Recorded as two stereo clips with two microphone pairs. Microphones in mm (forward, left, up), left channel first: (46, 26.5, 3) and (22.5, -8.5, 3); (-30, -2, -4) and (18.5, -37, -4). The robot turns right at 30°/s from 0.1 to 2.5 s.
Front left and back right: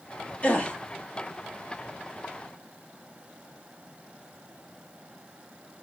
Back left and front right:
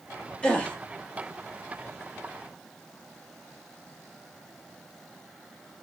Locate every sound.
0.4 s a gasp: 80° left, 0.8 m; by 0.8 s 90° left, 0.8 m